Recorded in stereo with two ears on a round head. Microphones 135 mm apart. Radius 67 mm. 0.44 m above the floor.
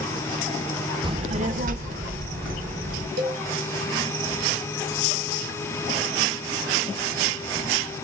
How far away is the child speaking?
About 0.6 m.